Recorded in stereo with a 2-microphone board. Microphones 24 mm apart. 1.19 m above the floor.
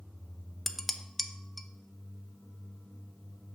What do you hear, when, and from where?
0.7 s dishes clattering: 5° left (ahead or behind), 0.6 m